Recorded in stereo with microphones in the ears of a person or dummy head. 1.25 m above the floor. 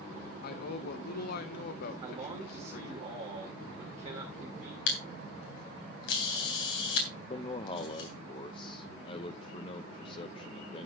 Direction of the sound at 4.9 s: 75° left (ahead or behind).